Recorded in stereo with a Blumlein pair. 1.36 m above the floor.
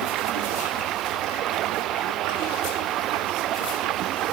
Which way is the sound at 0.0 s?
35° right.